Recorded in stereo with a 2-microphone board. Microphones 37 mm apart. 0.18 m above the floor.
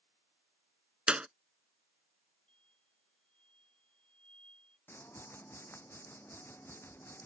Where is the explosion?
30° left (ahead or behind).